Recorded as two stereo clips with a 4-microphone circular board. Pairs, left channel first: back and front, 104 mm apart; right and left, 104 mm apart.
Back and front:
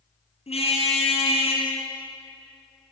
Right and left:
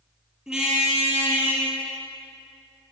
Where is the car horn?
175° left, 6.5 m; by 1.7 s 165° left, 7.5 m.